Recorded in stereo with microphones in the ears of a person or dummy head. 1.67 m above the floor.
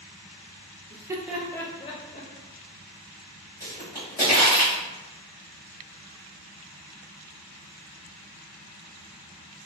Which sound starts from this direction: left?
A pop, at 3.6 s.